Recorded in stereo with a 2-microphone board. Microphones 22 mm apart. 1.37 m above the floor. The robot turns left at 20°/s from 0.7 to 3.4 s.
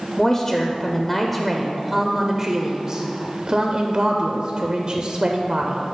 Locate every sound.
0.2 s a woman speaking: 20° left, 0.5 m; by 5.8 s 35° right, 0.5 m